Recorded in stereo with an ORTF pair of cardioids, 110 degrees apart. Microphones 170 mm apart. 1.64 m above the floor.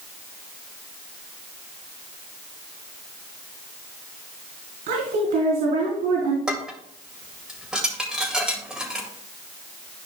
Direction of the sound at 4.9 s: 70° right.